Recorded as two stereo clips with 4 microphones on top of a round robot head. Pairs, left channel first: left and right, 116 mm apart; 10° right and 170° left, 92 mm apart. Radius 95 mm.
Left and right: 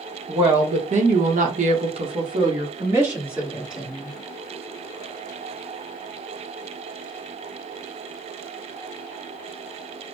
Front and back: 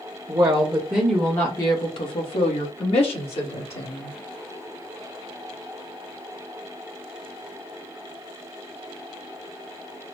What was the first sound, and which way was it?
A woman speaking, 130° right.